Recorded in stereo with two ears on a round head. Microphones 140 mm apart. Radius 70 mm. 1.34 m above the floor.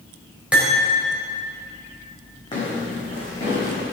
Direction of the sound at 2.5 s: 30° left (ahead or behind).